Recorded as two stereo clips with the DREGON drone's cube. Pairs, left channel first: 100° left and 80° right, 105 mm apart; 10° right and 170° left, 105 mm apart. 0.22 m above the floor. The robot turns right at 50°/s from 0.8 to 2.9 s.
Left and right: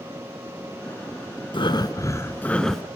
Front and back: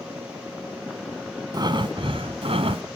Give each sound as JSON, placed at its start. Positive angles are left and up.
{"t": 1.5, "sound": "breathing", "azimuth_deg": 125, "distance_m": 1.0}